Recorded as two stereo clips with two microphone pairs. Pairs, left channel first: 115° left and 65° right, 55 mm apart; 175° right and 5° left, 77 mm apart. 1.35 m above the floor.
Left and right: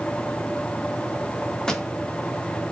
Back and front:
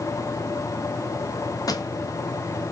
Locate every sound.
1.7 s a pop: 165° right, 0.6 m